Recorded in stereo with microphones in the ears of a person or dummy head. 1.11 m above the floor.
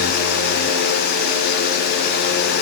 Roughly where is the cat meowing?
I don't hear a cat meowing.